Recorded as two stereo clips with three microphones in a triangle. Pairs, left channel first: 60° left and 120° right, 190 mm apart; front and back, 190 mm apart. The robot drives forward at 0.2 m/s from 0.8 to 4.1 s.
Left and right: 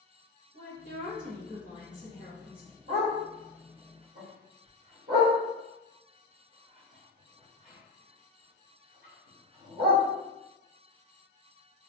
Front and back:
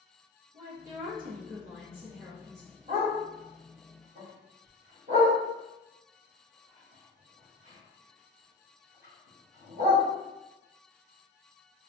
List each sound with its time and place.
0.5 s a woman speaking: 150° right, 1.0 m; by 2.7 s 160° right, 1.3 m
2.9 s a dog barking: 135° right, 1.3 m; by 10.0 s 140° right, 1.5 m